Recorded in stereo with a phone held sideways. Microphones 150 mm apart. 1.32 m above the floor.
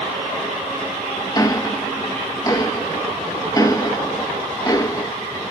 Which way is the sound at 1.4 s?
25° left (ahead or behind).